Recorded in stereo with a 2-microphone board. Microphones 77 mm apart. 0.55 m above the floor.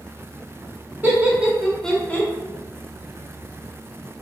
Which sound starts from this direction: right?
Laughter, at 1.0 s.